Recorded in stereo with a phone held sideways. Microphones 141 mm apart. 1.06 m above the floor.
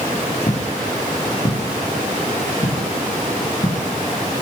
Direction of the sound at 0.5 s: 55° left (ahead or behind).